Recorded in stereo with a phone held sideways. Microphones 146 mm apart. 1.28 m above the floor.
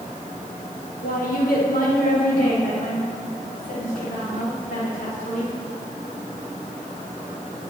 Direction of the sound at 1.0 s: 70° left (ahead or behind).